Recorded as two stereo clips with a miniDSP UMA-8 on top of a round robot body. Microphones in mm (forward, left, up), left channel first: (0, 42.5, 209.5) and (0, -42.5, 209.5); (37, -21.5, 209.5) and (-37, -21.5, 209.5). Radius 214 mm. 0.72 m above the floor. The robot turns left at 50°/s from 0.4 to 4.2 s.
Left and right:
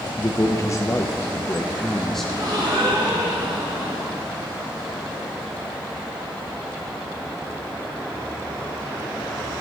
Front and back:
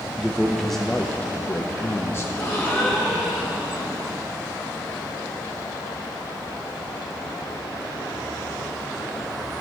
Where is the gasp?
50° right, 4.5 m; by 4.2 s 145° right, 4.5 m.